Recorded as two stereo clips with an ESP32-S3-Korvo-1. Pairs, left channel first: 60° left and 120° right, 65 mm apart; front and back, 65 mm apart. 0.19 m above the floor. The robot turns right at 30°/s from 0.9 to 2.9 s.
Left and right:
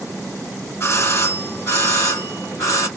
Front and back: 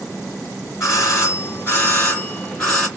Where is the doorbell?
25° left, 3 m; by 2.9 s 85° left, 3 m.